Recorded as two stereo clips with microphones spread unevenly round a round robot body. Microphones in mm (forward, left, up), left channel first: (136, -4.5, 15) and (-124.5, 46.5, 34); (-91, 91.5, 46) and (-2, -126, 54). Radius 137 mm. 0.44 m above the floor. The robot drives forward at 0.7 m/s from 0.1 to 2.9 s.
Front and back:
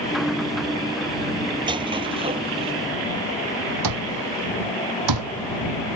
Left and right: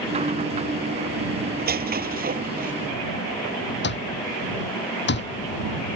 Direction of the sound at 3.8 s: 155° left.